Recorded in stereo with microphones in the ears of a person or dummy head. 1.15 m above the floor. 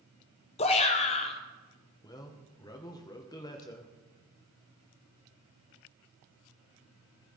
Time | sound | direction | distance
0.6 | a shout | 25° left (ahead or behind) | 0.7 m
2.0 | a man speaking | 15° left (ahead or behind) | 1.0 m